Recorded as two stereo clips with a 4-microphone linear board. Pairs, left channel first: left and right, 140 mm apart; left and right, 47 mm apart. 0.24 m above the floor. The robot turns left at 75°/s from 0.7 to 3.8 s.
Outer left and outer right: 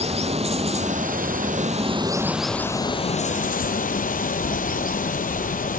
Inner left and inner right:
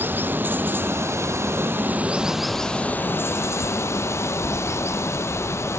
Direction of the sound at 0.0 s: 50° right.